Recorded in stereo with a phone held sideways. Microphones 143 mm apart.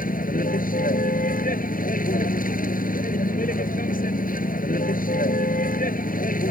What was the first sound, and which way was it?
A vehicle, 80° left.